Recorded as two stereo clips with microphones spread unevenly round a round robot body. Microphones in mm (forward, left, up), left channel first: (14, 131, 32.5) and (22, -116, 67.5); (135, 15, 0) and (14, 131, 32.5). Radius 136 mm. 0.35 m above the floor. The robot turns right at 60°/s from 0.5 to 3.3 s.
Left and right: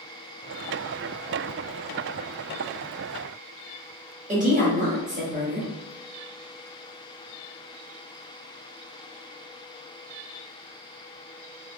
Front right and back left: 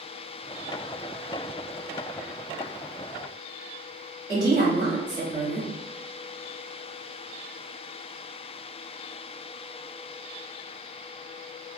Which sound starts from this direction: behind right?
A woman speaking, at 4.3 s.